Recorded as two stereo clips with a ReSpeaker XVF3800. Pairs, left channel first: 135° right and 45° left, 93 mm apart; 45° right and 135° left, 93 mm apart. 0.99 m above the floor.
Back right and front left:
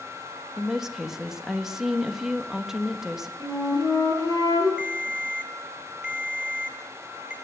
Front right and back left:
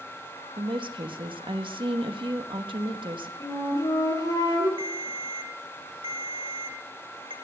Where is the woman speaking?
130° left, 1.3 m.